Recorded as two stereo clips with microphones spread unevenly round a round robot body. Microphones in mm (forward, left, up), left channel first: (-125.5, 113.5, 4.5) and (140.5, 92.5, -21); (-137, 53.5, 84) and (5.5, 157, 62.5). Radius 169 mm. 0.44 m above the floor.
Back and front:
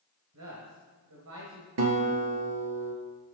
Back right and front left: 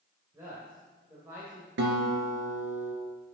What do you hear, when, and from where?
0.3 s a man speaking: 40° right, 1.6 m
1.8 s a guitar: 25° left, 2.0 m